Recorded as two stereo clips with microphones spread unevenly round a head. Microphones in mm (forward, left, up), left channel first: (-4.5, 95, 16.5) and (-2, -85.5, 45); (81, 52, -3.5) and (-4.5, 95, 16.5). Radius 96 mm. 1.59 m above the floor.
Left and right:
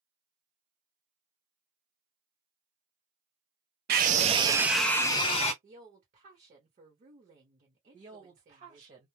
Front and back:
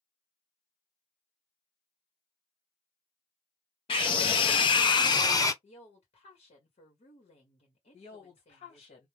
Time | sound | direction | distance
3.9 | a scream | 80° right | 0.6 m
5.6 | a woman speaking | 40° right | 1.0 m
7.9 | a woman speaking | 45° right | 1.3 m